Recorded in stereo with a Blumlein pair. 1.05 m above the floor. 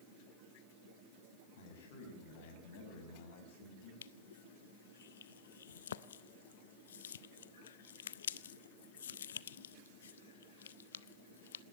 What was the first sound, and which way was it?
A man speaking, 55° left.